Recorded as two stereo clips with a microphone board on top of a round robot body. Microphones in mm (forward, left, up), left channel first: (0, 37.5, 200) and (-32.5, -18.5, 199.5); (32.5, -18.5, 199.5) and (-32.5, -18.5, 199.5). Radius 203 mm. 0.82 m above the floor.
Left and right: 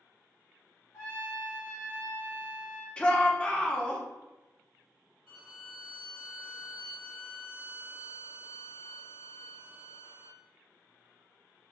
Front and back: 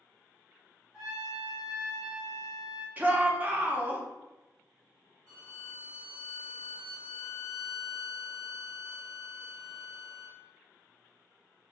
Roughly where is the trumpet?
Left.